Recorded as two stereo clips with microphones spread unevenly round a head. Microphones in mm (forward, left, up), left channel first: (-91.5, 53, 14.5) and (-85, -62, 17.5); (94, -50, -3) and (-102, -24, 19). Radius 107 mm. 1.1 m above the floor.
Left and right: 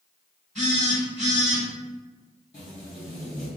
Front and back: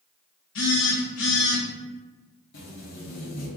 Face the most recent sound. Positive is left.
turn(degrees=40)